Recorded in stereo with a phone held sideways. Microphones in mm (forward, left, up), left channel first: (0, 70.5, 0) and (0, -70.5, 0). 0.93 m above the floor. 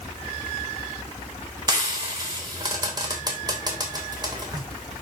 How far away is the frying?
About 3 m.